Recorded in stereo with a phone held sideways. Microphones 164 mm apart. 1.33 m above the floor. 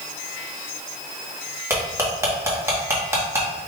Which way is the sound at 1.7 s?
15° right (ahead or behind).